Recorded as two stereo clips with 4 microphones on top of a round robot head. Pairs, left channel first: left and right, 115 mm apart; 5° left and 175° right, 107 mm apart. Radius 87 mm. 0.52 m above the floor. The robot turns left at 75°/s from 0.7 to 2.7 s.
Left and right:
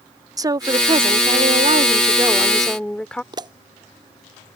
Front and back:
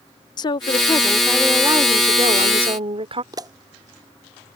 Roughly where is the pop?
Behind right.